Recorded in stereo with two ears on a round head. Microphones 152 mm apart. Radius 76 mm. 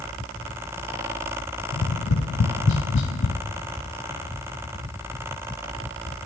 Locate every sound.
1.7 s tapping: 75° left (ahead or behind), 0.8 m